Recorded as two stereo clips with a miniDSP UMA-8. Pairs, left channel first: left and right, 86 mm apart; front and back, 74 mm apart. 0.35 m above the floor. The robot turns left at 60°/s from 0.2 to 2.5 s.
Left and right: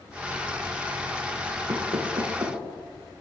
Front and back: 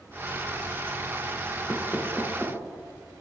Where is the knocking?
60° right, 5 m; by 2.6 s 105° right, 5 m.